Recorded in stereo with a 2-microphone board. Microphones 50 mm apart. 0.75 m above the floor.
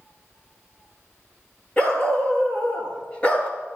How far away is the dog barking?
About 6 m.